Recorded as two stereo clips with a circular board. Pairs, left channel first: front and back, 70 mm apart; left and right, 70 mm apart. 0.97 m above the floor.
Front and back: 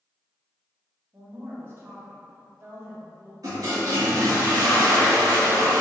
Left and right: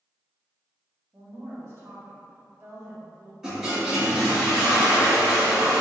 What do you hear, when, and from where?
1.1 s a woman speaking: 130° right, 0.9 m
3.4 s a toilet flushing: 165° right, 1.9 m